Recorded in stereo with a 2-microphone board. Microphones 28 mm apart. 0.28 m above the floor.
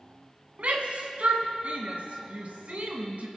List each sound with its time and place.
0.6 s a shout: 60° right (ahead or behind), 1.9 m